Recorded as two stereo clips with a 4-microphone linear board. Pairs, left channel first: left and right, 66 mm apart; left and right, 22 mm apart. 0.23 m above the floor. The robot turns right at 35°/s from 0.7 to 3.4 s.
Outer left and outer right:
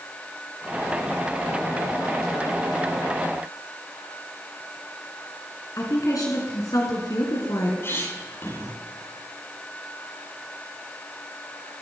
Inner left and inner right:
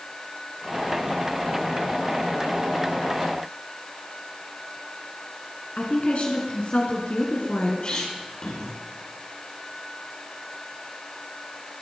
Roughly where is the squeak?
Left.